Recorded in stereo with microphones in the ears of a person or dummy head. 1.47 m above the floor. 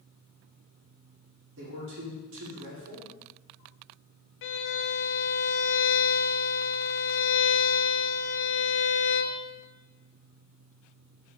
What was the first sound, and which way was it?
A man speaking, 80° right.